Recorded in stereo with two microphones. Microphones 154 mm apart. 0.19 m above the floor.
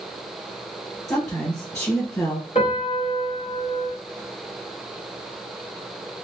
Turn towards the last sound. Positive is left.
turn(degrees=40)  # may be behind; listen again after turning